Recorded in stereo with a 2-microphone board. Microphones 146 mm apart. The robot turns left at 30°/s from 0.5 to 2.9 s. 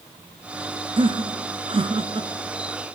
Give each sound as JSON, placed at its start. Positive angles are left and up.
{"t": 1.0, "sound": "laughter", "side_deg": -35, "distance_m": 1.8}